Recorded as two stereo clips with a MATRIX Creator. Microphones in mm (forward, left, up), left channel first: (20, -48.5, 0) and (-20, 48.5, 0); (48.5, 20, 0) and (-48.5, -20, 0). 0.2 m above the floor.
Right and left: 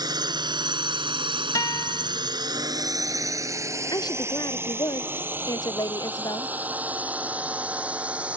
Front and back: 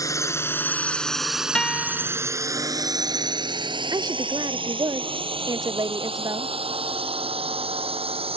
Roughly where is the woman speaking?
Behind right.